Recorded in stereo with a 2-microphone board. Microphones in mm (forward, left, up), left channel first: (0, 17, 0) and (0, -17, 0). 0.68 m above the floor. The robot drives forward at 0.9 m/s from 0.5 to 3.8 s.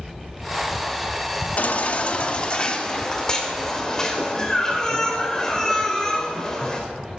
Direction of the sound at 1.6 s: 45° left (ahead or behind).